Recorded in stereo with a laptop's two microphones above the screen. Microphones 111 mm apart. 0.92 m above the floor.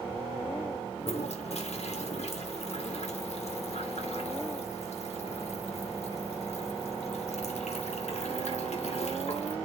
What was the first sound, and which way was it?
A toilet flushing, 75° left (ahead or behind).